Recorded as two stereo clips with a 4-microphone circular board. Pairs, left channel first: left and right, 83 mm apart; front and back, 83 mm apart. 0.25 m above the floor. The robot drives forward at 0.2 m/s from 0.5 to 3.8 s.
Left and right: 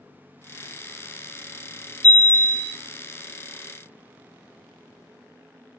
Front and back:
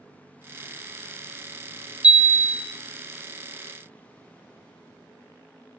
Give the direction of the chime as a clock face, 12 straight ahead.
4 o'clock.